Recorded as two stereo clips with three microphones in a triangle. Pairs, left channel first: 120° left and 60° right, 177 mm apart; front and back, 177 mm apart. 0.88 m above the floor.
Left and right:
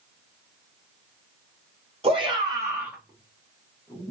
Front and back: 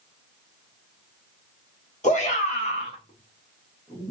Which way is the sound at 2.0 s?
20° right.